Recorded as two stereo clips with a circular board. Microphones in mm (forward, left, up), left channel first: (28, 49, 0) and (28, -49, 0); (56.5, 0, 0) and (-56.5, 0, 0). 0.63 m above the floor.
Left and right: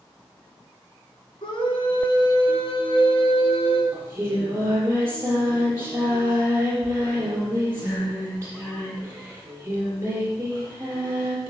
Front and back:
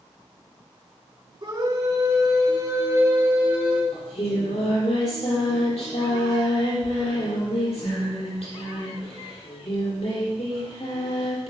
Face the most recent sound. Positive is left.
turn(degrees=-20)